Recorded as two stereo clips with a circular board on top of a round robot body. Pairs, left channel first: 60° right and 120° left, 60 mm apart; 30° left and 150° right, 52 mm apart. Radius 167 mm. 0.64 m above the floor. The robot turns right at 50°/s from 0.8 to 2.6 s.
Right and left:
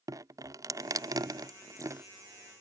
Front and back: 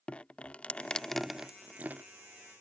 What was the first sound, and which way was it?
Dripping, 100° left.